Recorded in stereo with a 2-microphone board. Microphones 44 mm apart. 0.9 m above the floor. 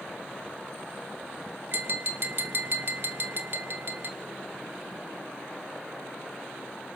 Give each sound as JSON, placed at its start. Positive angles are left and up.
{"t": 1.7, "sound": "tapping", "side_deg": -50, "distance_m": 1.6}